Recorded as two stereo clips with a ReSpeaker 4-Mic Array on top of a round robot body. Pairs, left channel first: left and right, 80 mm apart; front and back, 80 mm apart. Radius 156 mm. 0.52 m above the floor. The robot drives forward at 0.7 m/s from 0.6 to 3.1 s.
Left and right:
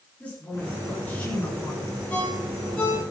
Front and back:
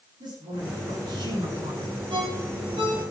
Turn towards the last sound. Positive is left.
turn(degrees=165)